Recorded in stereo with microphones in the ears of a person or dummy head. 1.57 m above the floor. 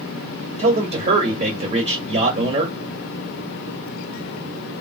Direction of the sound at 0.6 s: 30° right (ahead or behind).